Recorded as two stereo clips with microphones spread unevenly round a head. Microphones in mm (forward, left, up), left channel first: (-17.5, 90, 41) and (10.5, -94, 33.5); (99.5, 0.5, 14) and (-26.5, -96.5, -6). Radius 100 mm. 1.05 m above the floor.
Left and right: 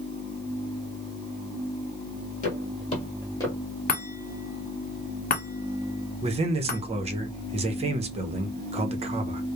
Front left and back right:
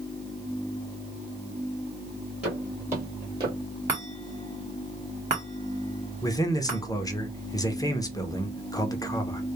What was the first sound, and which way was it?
Footsteps, 130° left.